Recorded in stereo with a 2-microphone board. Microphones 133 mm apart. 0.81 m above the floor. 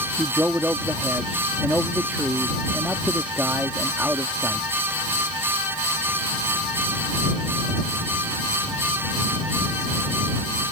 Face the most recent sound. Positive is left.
turn(degrees=-15)  # may be behind; listen again after turning